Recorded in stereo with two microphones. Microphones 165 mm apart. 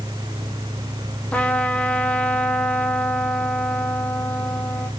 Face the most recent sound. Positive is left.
turn(degrees=10)  # may be behind; listen again after turning